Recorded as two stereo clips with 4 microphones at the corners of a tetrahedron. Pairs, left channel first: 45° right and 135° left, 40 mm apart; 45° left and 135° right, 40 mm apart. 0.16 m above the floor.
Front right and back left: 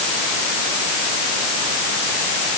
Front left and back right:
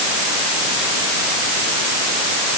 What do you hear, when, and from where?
Only background noise.